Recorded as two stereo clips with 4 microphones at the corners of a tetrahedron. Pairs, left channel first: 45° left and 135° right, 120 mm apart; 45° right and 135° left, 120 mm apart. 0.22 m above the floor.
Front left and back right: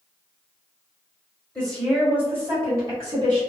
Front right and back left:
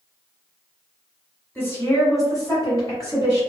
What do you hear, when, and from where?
1.6 s a woman speaking: 20° right, 1.2 m; by 3.4 s 95° right, 2 m